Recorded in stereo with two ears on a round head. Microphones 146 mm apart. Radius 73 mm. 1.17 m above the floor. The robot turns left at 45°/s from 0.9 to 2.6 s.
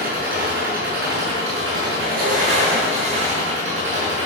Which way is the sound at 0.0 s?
60° right.